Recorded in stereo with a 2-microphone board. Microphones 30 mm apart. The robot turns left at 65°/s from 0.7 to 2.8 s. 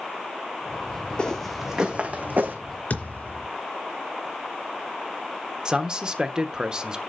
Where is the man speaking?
25° right (ahead or behind), 0.9 m.